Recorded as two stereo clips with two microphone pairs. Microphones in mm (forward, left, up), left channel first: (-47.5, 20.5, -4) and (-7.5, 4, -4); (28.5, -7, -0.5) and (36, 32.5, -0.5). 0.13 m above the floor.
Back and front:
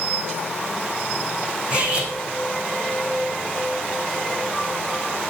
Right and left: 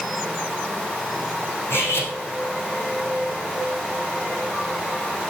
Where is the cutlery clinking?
90° right, 4 m.